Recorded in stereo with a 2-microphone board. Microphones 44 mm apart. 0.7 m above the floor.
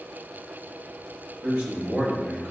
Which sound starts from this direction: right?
A man speaking, at 1.4 s.